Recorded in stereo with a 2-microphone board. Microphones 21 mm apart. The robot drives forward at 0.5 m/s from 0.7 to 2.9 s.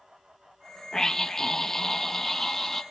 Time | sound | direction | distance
0.9 | a scream | 25° left (ahead or behind) | 0.7 m